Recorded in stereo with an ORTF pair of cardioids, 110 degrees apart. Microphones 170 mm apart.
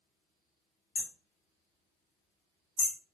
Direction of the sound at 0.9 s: 60° left.